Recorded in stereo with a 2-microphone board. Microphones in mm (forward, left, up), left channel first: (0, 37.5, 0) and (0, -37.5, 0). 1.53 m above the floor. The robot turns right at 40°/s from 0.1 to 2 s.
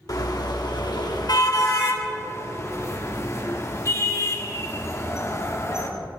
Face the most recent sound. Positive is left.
turn(degrees=40)  # may be behind; listen again after turning